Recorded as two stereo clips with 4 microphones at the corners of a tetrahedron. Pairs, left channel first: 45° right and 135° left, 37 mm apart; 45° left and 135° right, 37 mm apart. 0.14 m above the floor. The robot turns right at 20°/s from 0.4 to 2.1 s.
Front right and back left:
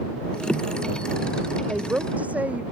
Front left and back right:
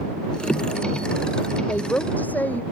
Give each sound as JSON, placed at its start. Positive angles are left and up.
{"t": 1.7, "sound": "a woman speaking", "azimuth_deg": 75}